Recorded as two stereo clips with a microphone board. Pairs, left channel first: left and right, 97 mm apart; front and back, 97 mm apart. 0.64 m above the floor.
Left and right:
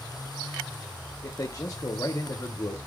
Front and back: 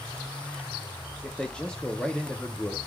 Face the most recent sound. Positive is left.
turn(degrees=75)